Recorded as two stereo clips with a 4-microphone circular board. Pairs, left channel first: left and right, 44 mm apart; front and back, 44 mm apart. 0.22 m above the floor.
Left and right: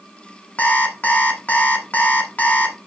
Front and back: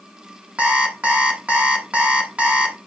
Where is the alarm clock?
125° left, 1.4 m.